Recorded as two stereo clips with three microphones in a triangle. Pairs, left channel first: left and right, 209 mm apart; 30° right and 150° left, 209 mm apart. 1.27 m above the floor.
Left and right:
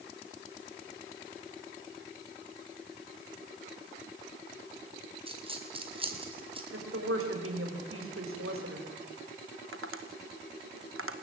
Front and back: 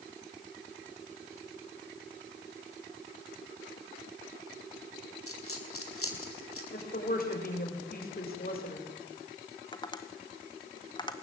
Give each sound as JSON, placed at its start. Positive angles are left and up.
{"t": 5.3, "sound": "a dropped coin", "azimuth_deg": -25, "distance_m": 4.0}
{"t": 6.7, "sound": "a woman speaking", "azimuth_deg": -75, "distance_m": 6.5}
{"t": 9.7, "sound": "tapping", "azimuth_deg": -100, "distance_m": 2.0}